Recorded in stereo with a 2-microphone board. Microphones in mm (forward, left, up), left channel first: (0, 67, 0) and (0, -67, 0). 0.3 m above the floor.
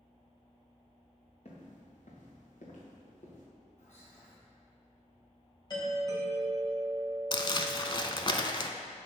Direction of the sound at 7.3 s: 35° left (ahead or behind).